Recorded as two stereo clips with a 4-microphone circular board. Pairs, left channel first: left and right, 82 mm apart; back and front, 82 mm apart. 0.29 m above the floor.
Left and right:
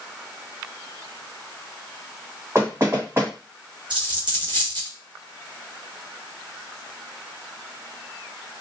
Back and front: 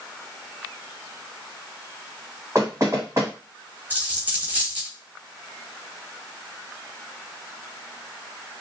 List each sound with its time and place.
2.5 s knocking: 40° right, 1.5 m
3.9 s a dropped coin: 70° right, 1.2 m